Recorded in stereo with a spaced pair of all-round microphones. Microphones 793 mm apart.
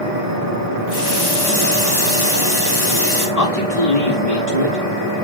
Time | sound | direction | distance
0.9 | a running tap | 70° left (ahead or behind) | 2.5 m
3.4 | a man speaking | 55° left (ahead or behind) | 5.5 m